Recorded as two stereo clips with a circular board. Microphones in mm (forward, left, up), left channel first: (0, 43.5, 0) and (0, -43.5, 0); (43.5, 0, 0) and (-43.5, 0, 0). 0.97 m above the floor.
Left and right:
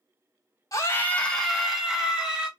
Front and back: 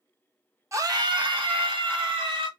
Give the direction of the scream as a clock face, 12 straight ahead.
8 o'clock.